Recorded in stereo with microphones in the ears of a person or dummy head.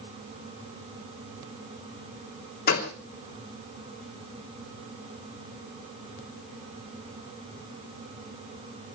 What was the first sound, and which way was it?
A gunshot, 50° left (ahead or behind).